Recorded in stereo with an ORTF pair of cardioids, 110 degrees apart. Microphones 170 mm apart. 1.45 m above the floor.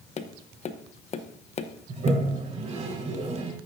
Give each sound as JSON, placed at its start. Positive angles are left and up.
{"t": 0.2, "sound": "tapping", "azimuth_deg": 40, "distance_m": 0.9}
{"t": 1.9, "sound": "a toilet flushing", "azimuth_deg": -40, "distance_m": 4.5}